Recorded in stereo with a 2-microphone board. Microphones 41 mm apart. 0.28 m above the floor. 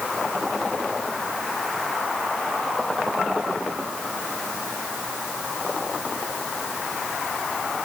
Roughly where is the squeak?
No squeak in this recording.